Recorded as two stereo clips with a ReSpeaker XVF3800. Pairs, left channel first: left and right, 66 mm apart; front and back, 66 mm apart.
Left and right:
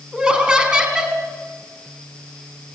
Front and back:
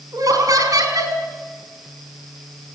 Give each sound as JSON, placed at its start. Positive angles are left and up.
{"t": 0.1, "sound": "laughter", "azimuth_deg": -165, "distance_m": 4.0}